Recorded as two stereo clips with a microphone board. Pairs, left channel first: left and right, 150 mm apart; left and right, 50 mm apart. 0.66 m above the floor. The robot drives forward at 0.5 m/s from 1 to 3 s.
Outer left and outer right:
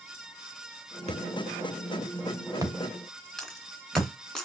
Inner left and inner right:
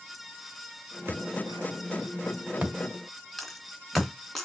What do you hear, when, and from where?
1.1 s a thud: 45° right (ahead or behind), 0.8 m; by 4.1 s 20° right (ahead or behind), 1.6 m
3.4 s a dropped coin: 5° left (ahead or behind), 2 m